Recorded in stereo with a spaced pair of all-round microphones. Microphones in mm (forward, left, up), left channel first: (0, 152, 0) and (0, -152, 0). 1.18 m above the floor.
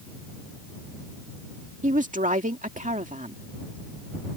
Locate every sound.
1.8 s a woman speaking: 25° right (ahead or behind)